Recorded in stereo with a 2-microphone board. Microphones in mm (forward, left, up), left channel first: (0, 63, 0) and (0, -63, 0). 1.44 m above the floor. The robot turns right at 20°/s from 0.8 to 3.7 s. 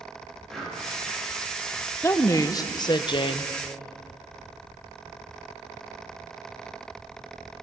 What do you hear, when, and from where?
0.5 s breathing: 5° left (ahead or behind), 2.5 m
2.0 s a woman speaking: 20° left (ahead or behind), 0.5 m; by 3.5 s 45° left (ahead or behind), 0.5 m